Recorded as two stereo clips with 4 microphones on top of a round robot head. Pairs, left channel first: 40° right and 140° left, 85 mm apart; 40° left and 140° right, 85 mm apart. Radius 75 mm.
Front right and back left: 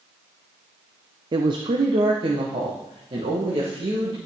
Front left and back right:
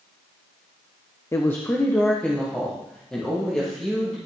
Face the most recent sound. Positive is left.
turn(degrees=125)